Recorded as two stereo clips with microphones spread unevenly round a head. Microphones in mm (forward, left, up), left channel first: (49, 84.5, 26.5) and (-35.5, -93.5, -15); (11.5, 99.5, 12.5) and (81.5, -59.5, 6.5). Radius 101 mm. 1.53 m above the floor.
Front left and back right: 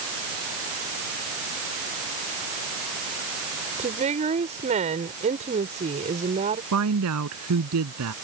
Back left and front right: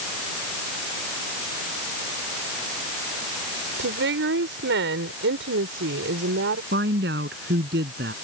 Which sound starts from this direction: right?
A woman speaking, at 6.7 s.